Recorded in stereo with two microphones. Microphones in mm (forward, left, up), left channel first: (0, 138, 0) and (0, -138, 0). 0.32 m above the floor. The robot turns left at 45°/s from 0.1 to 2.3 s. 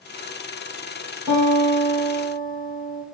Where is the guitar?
170° right, 2.5 m; by 3.0 s 145° left, 2.5 m.